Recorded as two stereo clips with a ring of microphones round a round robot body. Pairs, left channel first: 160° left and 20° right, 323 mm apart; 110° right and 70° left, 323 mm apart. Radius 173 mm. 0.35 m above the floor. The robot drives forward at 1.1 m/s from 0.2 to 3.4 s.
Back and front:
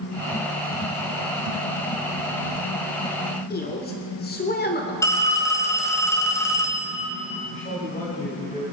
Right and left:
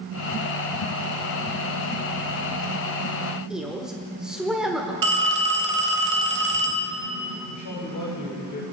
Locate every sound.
3.5 s a woman speaking: 155° left, 1.4 m
5.0 s a phone ringing: 75° left, 1.6 m
7.5 s a man speaking: 135° right, 2.5 m